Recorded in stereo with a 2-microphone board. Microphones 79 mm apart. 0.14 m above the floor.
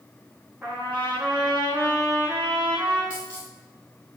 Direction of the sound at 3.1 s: 20° right (ahead or behind).